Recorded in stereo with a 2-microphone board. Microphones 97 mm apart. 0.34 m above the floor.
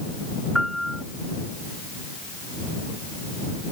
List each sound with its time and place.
0.6 s a piano: centre (ahead or behind)